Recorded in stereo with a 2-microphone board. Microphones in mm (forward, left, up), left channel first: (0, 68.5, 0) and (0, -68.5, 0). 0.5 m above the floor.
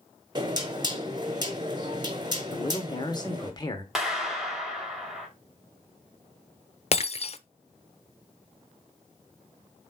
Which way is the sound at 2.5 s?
30° left (ahead or behind).